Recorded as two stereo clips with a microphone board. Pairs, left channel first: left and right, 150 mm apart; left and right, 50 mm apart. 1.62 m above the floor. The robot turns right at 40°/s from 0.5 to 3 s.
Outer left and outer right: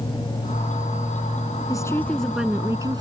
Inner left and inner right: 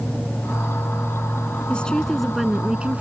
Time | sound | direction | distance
1.7 | a woman speaking | 155° left | ?